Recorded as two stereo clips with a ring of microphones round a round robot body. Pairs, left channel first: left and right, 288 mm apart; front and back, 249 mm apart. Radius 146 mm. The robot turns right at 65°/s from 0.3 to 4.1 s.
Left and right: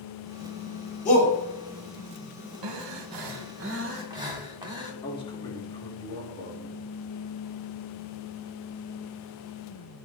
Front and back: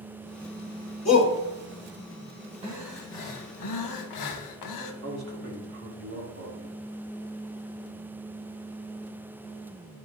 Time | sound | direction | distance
1.1 | a shout | 25° left | 2.5 m
2.6 | breathing | 110° right | 0.9 m
5.0 | a man speaking | 160° left | 1.7 m